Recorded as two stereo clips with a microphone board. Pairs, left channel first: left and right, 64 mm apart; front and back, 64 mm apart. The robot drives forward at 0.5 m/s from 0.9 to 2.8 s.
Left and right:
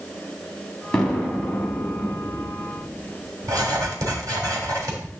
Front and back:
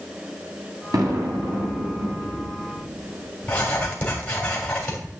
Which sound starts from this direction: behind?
An explosion, at 0.9 s.